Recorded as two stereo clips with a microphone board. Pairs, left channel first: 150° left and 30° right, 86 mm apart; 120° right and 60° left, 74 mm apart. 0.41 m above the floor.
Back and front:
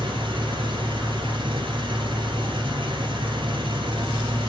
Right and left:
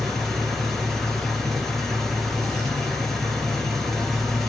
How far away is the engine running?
About 2.5 m.